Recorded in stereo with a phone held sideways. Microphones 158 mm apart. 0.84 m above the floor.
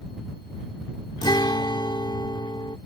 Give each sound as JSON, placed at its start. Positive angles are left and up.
{"t": 1.2, "sound": "a guitar", "side_deg": 30}